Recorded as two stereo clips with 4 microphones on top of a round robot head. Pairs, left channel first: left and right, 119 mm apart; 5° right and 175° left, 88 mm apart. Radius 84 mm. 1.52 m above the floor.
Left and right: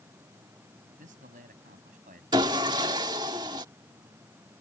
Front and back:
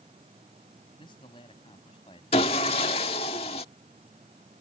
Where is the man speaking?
60° right.